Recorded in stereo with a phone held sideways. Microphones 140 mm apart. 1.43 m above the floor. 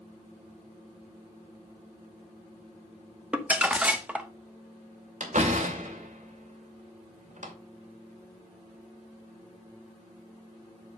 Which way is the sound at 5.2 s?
65° right (ahead or behind).